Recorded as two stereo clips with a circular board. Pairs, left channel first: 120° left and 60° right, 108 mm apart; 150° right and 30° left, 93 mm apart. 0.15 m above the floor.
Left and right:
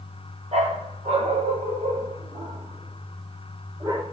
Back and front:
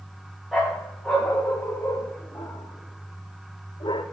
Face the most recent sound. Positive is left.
turn(degrees=-115)